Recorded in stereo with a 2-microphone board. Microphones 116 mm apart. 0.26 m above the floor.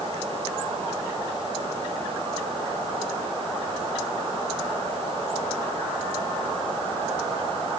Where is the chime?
No chime in this recording.